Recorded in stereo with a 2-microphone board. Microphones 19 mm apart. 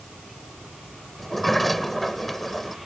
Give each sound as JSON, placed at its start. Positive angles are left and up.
{"t": 1.2, "sound": "a sliding door", "side_deg": 5}